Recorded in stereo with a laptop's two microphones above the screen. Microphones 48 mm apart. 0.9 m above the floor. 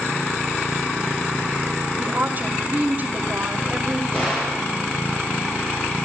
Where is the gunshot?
25° left (ahead or behind), 8 m.